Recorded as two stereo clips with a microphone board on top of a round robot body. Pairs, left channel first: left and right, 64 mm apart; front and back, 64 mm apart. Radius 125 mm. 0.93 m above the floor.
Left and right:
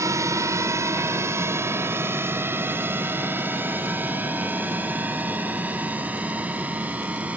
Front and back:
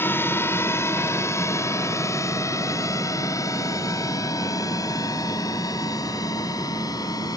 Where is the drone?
55° right; by 7.4 s 20° right.